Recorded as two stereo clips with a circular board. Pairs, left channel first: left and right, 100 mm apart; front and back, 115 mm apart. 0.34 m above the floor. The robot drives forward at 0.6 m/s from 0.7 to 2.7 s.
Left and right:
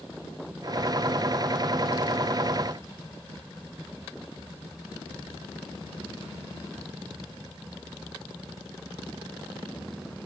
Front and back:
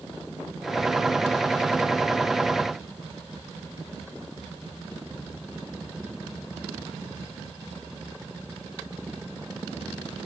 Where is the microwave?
No microwave in this recording.